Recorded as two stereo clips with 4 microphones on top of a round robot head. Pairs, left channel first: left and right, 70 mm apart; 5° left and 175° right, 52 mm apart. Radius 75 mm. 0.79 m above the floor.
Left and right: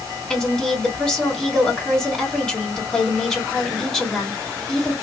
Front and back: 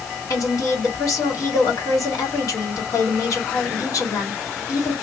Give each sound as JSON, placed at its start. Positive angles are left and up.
{"t": 0.3, "sound": "a woman speaking", "azimuth_deg": 10, "distance_m": 1.6}